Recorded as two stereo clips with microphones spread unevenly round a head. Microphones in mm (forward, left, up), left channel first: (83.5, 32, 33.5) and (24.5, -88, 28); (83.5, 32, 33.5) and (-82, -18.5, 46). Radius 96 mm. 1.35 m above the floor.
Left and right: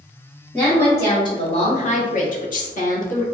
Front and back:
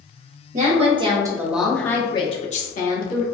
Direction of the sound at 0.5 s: 145° left.